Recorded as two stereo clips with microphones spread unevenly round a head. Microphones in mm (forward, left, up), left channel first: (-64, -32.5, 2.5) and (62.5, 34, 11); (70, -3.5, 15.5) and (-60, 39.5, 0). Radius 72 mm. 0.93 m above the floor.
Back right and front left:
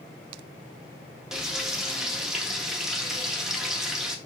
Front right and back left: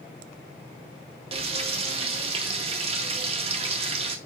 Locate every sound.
1.3 s frying: 115° left, 0.7 m